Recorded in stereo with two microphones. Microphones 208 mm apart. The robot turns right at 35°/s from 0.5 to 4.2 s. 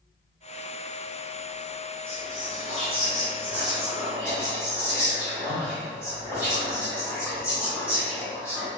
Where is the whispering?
85° right, 1.2 m; by 8.7 s 10° right, 1.2 m.